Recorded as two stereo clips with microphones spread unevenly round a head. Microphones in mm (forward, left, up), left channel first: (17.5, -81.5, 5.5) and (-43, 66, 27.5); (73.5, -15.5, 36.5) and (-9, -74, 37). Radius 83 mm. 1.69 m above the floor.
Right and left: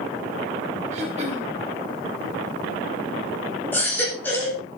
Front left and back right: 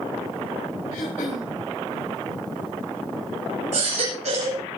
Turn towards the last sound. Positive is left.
turn(degrees=-145)